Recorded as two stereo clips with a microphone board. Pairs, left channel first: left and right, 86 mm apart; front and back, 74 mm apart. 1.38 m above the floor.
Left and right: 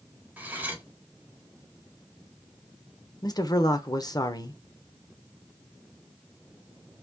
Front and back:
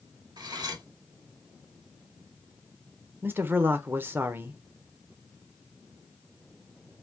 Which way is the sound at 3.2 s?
125° left.